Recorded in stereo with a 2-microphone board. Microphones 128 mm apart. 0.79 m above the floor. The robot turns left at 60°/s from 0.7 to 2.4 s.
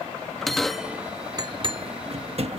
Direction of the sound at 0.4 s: Centre (ahead or behind).